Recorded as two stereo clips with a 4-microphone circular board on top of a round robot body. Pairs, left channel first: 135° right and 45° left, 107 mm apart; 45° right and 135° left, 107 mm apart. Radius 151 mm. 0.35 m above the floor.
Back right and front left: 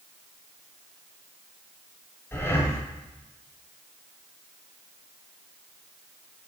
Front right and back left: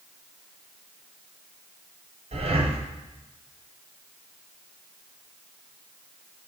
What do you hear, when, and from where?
2.3 s breathing: 155° left, 1.3 m